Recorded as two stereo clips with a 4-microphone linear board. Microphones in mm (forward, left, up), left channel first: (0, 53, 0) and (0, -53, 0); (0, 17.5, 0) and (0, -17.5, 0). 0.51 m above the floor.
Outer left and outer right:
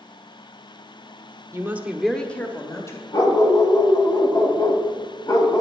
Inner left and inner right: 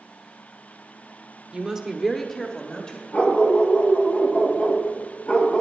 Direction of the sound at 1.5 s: 30° right (ahead or behind).